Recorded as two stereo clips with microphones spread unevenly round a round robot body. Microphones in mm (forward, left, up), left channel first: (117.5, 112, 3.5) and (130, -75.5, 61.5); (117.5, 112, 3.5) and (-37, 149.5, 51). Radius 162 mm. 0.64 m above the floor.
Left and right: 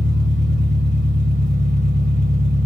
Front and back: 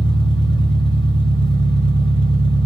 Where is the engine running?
145° right, 2.0 m.